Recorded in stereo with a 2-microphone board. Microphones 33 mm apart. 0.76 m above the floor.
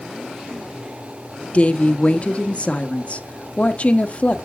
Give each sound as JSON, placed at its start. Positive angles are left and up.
{"t": 1.5, "sound": "a woman speaking", "side_deg": 40, "distance_m": 0.9}